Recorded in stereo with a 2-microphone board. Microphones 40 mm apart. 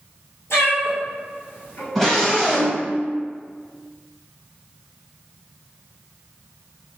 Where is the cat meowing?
80° left, 1.6 m; by 1.9 s 60° left (ahead or behind), 1.1 m.